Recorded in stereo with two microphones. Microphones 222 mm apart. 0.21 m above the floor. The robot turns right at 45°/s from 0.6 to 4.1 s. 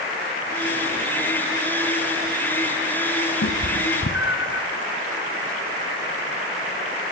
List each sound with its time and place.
3.4 s a cat meowing: 60° left (ahead or behind), 0.9 m; by 4.6 s 55° left (ahead or behind), 0.9 m